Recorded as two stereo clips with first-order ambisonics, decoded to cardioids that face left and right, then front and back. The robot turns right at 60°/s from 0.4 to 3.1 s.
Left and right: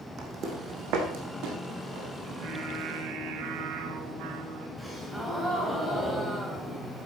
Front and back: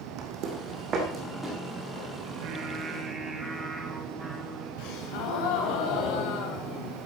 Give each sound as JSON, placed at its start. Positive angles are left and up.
{"t": 0.2, "sound": "footsteps", "azimuth_deg": -150, "distance_m": 2.5}
{"t": 2.2, "sound": "singing", "azimuth_deg": -150, "distance_m": 2.5}
{"t": 4.8, "sound": "a gasp", "azimuth_deg": 5, "distance_m": 2.5}